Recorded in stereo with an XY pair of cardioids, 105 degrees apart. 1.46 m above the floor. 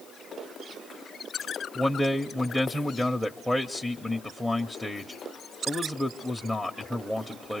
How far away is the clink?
No clink in this recording.